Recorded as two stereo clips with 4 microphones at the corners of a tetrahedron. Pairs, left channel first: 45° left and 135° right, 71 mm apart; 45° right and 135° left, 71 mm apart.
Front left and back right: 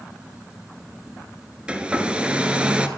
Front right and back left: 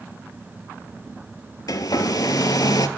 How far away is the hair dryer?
About 0.5 m.